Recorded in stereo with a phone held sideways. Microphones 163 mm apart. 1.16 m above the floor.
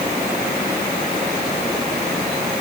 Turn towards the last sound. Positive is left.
No sound to turn to.